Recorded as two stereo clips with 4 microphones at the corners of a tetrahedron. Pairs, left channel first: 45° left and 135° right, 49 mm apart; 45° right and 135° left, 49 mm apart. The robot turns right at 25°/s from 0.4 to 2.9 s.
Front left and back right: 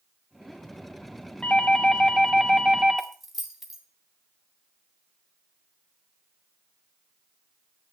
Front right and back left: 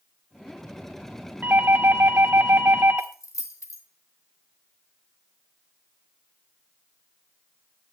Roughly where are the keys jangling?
Ahead right.